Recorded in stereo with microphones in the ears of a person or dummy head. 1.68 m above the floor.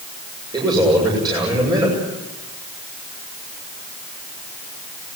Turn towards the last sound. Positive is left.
turn(degrees=-20)  # may be behind; listen again after turning